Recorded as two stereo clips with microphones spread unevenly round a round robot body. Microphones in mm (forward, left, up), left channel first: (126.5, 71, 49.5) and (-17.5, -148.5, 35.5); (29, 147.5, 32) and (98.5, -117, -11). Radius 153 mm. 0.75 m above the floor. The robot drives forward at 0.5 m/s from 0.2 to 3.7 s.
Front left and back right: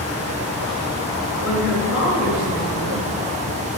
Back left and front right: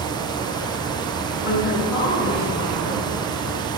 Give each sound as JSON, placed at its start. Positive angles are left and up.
{"t": 1.4, "sound": "a woman speaking", "azimuth_deg": 110, "distance_m": 5.0}